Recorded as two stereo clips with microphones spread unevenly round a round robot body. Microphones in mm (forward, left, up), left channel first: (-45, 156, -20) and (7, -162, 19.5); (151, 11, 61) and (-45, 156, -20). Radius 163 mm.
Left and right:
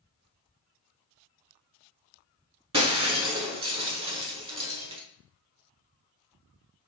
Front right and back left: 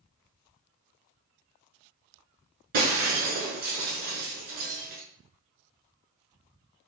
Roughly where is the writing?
No writing in this recording.